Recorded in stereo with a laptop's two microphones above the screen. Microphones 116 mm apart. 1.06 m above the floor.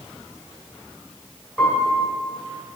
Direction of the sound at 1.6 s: 10° right (ahead or behind).